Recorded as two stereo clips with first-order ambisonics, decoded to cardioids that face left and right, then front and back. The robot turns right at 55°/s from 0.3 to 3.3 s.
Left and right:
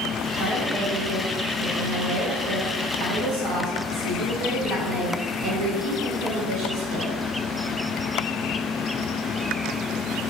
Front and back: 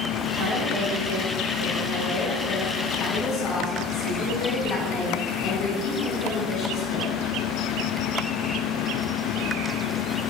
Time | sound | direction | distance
0.4 | a woman speaking | 145° left | 2.5 m